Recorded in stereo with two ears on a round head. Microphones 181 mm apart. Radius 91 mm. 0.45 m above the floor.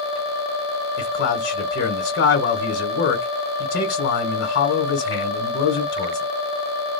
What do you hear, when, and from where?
1.0 s a man speaking: 55° left (ahead or behind), 2 m